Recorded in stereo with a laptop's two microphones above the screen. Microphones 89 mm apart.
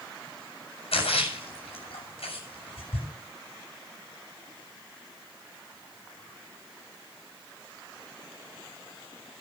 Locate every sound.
0.9 s a splash: 85° left, 7 m